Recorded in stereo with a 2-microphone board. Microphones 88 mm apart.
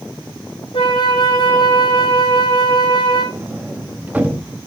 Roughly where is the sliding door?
Centre.